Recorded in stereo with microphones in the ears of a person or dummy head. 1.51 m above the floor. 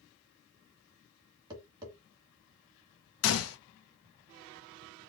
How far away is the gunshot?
About 0.6 m.